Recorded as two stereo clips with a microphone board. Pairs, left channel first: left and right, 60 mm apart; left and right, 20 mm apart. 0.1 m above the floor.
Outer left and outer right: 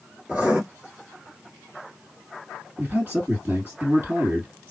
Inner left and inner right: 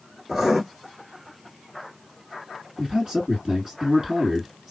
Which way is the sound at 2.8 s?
30° right (ahead or behind).